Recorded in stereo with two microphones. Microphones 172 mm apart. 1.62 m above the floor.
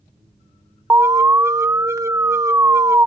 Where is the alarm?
15° right (ahead or behind).